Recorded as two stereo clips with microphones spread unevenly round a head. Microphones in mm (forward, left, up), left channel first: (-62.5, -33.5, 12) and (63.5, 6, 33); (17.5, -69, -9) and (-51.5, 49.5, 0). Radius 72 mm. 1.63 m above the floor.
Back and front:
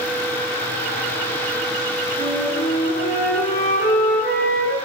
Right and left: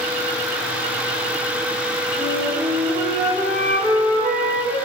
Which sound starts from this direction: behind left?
A flute, at 2.2 s.